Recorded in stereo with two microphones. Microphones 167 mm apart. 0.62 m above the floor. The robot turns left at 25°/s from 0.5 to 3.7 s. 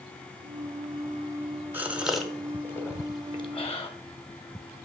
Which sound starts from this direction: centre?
A gasp, at 1.7 s.